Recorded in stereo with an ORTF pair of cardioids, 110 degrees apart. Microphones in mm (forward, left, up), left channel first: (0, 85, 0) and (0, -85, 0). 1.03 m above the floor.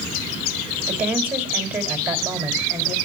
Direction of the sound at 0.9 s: 10° right.